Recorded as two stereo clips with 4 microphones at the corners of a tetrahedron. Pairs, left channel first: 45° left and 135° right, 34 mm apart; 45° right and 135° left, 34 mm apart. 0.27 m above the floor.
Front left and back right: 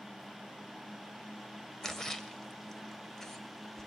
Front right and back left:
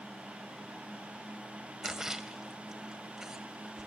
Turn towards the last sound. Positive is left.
turn(degrees=105)